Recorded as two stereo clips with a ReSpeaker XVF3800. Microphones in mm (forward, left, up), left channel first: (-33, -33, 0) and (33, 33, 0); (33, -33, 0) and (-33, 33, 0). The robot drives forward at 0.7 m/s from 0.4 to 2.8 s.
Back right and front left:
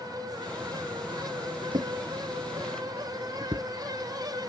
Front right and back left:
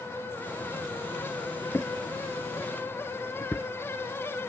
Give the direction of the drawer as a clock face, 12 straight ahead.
11 o'clock.